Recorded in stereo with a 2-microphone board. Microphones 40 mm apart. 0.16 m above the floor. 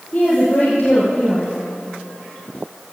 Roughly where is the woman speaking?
Left.